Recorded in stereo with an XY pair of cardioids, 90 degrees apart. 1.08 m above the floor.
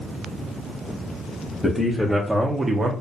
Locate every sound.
1.6 s a man speaking: 15° left, 0.8 m; by 2.9 s 55° right, 0.5 m